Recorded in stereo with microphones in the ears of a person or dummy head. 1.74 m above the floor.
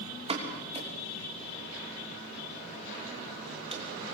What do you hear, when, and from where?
0.3 s a pop: 30° right (ahead or behind), 3 m